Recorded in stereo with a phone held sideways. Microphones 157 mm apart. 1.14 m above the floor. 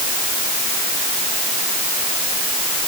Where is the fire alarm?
No fire alarm in this recording.